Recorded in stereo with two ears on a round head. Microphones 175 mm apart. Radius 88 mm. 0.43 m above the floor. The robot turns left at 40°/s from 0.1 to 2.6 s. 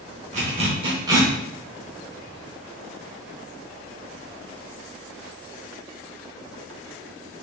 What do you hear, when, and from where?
0.3 s a zipper: 40° right (ahead or behind), 0.9 m; by 1.3 s 15° right (ahead or behind), 0.9 m